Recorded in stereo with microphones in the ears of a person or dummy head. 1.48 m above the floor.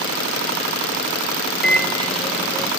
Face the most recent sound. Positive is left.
turn(degrees=0)  # may be behind; listen again after turning